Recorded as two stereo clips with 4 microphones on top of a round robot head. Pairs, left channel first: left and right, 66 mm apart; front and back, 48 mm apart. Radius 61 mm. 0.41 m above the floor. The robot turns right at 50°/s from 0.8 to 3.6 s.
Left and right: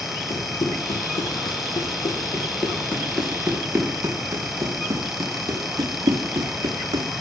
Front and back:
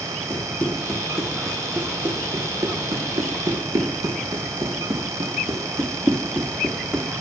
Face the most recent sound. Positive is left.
turn(degrees=-115)